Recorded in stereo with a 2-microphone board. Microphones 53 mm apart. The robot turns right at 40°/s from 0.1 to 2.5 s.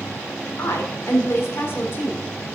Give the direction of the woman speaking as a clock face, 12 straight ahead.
9 o'clock.